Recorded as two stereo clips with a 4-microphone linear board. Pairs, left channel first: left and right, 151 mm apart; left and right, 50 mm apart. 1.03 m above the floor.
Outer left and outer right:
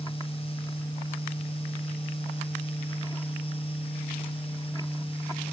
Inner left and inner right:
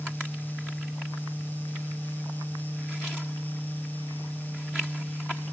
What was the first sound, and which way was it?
Only background noise.